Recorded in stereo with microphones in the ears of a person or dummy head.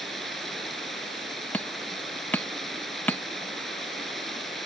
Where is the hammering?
10° left (ahead or behind).